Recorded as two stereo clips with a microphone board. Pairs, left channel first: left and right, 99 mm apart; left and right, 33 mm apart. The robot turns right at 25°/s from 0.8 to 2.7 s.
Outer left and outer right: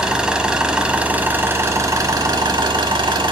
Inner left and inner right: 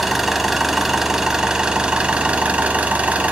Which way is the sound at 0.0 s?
170° right.